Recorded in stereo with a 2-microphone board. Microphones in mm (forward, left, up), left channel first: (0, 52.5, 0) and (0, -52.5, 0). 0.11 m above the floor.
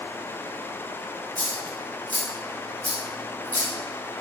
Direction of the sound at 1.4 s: 15° left (ahead or behind).